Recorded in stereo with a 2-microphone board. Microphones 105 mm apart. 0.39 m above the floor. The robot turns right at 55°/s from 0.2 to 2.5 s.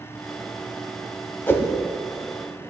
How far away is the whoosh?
About 0.8 m.